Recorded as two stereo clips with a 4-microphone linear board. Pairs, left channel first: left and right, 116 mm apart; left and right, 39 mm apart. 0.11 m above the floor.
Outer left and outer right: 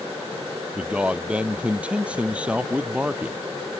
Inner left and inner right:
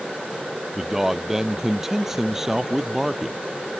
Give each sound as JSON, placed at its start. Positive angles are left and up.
{"t": 0.8, "sound": "a man speaking", "side_deg": -10}